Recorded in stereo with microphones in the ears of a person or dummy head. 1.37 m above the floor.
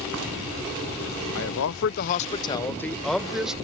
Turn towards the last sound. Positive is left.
turn(degrees=-5)  # may be behind; listen again after turning